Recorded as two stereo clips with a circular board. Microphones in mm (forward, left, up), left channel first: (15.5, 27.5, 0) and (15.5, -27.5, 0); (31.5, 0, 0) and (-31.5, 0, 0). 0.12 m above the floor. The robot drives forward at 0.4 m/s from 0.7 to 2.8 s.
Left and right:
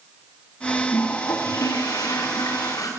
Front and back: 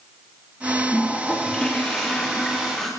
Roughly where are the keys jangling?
I don't hear keys jangling.